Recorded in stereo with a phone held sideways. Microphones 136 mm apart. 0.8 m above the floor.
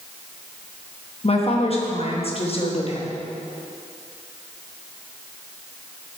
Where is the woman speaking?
45° left (ahead or behind), 1.0 m.